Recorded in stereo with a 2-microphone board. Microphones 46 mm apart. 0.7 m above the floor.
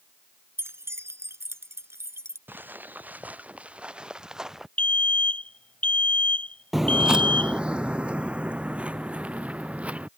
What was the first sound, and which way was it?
Keys jangling, 70° right (ahead or behind).